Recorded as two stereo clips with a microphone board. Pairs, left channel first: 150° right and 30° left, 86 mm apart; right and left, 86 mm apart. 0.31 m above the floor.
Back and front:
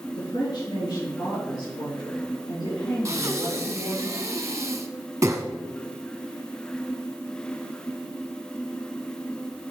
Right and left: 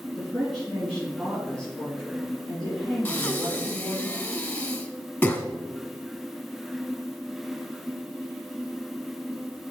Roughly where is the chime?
I don't hear a chime.